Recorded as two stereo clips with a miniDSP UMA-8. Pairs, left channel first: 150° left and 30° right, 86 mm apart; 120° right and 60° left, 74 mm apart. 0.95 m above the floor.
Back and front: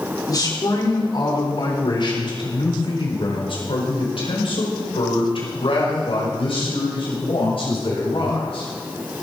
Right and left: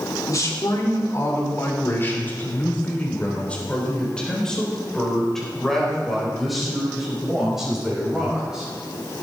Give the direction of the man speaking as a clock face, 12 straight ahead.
6 o'clock.